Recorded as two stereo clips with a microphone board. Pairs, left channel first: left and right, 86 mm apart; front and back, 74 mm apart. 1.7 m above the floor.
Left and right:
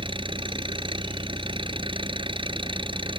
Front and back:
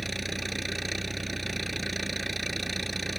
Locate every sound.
0.0 s an engine running: 90° right